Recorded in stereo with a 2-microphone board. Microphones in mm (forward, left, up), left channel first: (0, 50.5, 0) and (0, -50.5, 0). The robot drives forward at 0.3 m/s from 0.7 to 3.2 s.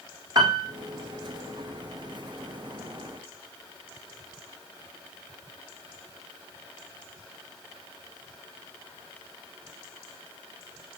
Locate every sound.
0.3 s a piano: 40° right (ahead or behind), 3 m